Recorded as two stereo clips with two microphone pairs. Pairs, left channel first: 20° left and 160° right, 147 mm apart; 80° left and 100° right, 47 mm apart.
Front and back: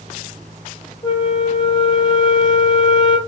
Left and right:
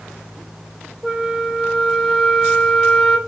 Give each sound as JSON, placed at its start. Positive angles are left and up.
{"t": 1.0, "sound": "a flute", "azimuth_deg": -25, "distance_m": 1.7}